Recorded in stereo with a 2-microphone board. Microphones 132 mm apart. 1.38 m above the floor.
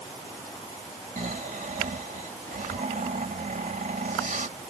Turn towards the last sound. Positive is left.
turn(degrees=-85)